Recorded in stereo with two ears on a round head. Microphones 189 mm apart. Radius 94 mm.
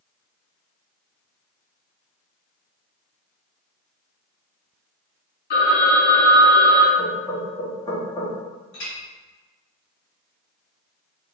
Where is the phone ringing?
50° left (ahead or behind), 1.7 m.